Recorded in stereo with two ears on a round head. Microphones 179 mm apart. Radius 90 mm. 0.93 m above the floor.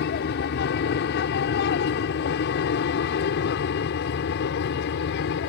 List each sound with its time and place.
0.0 s an aircraft: 55° left (ahead or behind); by 5.5 s 60° left (ahead or behind)